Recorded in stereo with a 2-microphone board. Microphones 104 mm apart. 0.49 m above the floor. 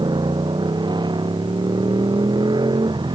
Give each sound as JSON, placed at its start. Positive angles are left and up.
{"t": 0.0, "sound": "a motorcycle", "side_deg": -45}